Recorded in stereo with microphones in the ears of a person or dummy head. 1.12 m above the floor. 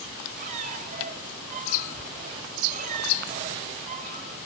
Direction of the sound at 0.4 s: 50° right (ahead or behind).